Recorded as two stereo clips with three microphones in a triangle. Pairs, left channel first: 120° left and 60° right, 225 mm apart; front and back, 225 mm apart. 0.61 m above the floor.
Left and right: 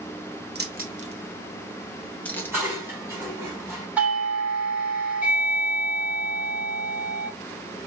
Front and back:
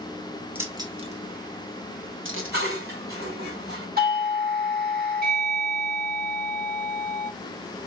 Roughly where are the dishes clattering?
Behind right.